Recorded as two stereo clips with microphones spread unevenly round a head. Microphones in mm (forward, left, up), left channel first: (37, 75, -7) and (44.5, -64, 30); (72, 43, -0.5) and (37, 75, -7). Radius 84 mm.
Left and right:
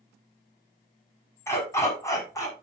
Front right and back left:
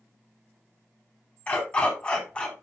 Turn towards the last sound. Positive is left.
turn(degrees=25)